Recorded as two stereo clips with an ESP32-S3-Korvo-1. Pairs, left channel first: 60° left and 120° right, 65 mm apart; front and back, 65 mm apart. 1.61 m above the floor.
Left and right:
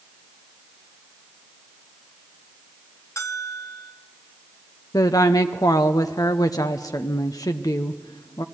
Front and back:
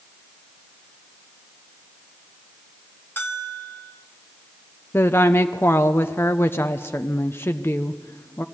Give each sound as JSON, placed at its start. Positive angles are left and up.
{"t": 3.2, "sound": "a bell", "azimuth_deg": 45, "distance_m": 1.3}
{"t": 4.9, "sound": "a woman speaking", "azimuth_deg": 50, "distance_m": 0.7}